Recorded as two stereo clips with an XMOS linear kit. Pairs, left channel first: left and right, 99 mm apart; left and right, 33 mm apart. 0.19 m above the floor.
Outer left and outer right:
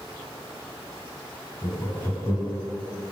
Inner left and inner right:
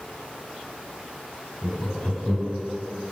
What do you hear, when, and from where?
1.6 s laughter: 35° left (ahead or behind), 1.2 m